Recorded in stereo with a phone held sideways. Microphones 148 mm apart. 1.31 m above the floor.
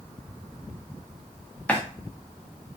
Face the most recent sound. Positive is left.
turn(degrees=10)  # may be behind; listen again after turning